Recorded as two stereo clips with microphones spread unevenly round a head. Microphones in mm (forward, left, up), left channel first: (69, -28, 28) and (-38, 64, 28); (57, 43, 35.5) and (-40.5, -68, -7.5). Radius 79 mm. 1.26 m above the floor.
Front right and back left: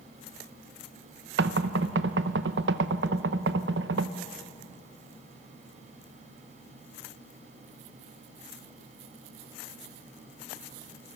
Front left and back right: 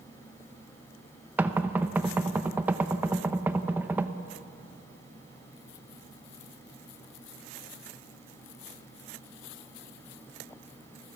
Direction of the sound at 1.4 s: 145° left.